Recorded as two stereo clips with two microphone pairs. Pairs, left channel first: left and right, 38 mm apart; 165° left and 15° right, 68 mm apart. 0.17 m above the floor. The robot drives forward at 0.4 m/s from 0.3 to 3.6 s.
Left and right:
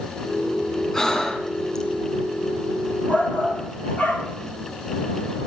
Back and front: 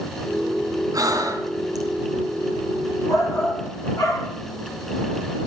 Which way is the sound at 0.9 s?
15° left.